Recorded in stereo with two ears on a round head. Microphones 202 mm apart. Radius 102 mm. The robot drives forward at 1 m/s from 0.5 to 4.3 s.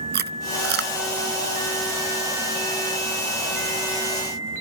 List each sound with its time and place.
0.1 s chewing: 45° right (ahead or behind); by 0.9 s 50° right (ahead or behind)